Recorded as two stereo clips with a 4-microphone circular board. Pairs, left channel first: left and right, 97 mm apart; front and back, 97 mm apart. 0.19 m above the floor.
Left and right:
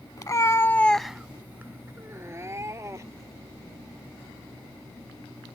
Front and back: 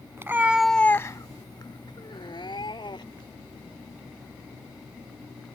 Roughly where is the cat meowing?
Behind left.